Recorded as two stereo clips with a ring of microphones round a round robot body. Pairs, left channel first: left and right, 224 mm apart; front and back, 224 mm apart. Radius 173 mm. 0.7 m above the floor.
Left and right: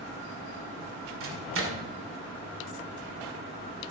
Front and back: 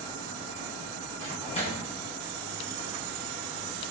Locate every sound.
1.2 s a microwave: 65° right, 2 m